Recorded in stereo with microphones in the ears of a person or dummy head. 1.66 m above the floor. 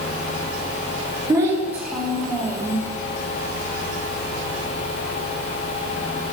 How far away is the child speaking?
About 1.4 m.